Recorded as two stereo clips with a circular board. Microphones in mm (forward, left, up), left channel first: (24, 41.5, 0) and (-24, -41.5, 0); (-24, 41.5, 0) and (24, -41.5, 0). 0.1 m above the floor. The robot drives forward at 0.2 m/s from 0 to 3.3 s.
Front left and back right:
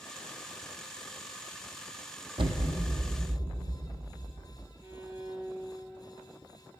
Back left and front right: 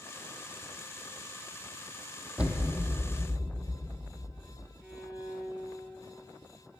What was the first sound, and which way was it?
An explosion, 135° right.